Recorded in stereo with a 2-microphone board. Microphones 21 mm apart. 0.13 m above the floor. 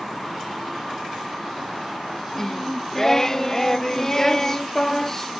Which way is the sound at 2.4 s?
30° left (ahead or behind).